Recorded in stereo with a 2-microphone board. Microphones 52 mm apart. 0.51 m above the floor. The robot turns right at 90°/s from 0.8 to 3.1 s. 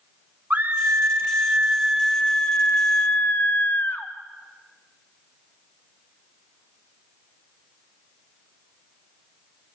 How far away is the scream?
About 1.3 m.